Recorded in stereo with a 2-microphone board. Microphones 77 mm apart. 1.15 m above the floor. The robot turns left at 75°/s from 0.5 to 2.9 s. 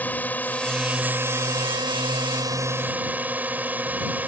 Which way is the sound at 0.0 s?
25° left.